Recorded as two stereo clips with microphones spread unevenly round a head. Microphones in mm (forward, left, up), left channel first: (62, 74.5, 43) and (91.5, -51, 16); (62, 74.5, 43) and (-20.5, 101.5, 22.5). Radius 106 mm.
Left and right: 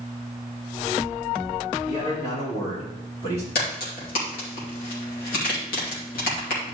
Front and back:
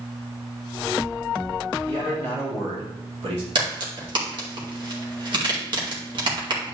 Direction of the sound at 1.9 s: 170° left.